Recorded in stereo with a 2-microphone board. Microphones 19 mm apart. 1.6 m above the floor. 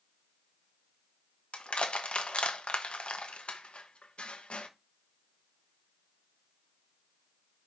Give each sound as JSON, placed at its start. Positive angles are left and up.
{"t": 1.5, "sound": "crushing", "side_deg": 60, "distance_m": 1.1}